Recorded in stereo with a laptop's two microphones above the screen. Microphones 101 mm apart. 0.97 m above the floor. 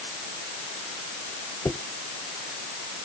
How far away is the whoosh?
About 0.9 m.